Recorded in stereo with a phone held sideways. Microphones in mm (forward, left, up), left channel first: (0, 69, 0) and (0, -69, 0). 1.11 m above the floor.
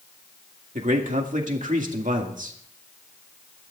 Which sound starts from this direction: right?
A man speaking, at 0.8 s.